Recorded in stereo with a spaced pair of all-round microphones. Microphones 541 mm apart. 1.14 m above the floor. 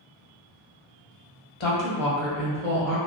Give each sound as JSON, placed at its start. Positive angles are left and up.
{"t": 1.6, "sound": "a woman speaking", "side_deg": 60, "distance_m": 0.7}